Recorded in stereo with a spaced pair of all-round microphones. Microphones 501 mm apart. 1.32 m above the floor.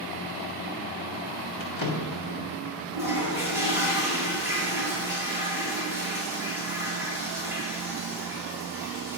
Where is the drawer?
40° left (ahead or behind), 1.5 m.